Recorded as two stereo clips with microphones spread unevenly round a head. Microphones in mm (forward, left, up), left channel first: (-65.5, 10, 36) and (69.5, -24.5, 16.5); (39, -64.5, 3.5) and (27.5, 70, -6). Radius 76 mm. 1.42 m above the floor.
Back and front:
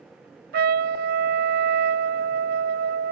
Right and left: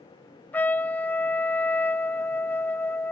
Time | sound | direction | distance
0.5 | a trumpet | 5° right | ?